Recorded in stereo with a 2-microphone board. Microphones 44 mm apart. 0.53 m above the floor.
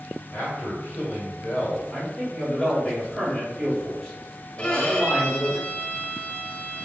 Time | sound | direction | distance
0.3 | a man speaking | 40° left (ahead or behind) | 1.7 m
1.9 | a man speaking | 15° left (ahead or behind) | 1.3 m
4.6 | a violin | 25° left (ahead or behind) | 0.6 m